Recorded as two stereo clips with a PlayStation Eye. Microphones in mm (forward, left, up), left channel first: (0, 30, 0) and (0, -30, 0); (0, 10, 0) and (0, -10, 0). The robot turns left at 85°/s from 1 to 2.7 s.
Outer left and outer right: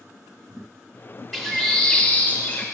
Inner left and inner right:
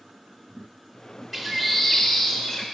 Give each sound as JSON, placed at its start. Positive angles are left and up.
{"t": 1.3, "sound": "a bird", "side_deg": 0, "distance_m": 1.0}